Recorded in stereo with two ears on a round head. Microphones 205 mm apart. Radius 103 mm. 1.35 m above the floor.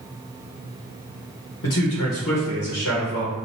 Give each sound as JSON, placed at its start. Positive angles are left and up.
{"t": 1.6, "sound": "a man speaking", "side_deg": 70, "distance_m": 1.1}